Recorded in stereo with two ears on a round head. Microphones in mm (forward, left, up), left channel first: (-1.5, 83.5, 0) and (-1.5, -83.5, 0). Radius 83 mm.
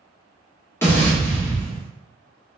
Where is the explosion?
15° left (ahead or behind), 0.9 m.